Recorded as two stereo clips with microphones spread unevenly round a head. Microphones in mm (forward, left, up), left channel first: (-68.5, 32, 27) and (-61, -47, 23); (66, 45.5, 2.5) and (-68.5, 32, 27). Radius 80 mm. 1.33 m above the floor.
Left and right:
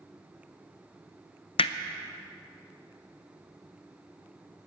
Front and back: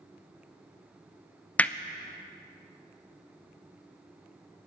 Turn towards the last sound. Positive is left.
turn(degrees=85)